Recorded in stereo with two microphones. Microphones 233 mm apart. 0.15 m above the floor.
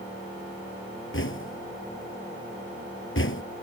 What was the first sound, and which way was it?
Knocking, 60° left (ahead or behind).